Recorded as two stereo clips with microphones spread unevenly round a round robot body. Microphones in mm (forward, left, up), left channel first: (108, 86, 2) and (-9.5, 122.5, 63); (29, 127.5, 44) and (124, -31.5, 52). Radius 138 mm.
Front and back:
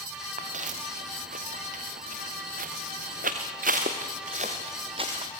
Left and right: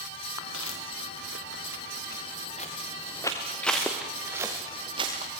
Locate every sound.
0.4 s footsteps: 150° left, 2.5 m; by 5.3 s 130° right, 2.5 m